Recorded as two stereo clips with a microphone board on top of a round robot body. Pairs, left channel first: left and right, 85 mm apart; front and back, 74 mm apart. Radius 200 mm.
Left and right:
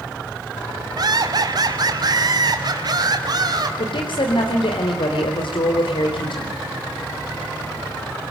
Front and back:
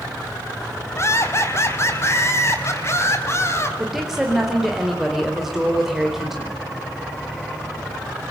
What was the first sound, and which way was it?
Laughter, 50° right.